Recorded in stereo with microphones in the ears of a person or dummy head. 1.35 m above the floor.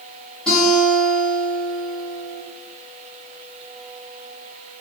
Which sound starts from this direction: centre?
A guitar, at 0.5 s.